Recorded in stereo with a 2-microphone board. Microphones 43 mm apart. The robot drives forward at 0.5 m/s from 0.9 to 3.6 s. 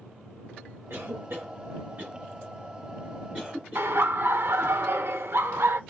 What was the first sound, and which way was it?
A cough, 70° right (ahead or behind).